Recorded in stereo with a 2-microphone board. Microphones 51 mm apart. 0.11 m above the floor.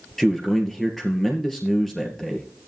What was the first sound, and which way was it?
A man speaking, 5° left (ahead or behind).